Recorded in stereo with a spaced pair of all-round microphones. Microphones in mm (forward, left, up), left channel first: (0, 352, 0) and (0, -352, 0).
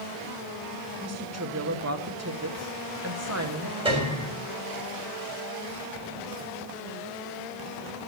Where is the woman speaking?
20° right (ahead or behind), 1.0 m.